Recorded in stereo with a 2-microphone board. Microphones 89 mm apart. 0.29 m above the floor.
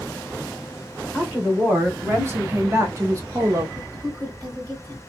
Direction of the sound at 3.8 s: 45° right (ahead or behind).